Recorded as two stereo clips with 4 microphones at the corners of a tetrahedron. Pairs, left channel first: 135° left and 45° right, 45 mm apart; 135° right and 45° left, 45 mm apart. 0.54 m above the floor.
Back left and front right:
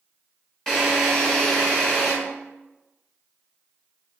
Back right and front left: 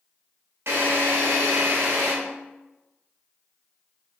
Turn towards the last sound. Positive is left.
turn(degrees=60)